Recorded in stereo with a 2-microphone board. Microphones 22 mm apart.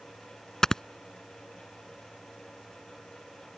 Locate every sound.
0.6 s snoring: 25° left (ahead or behind)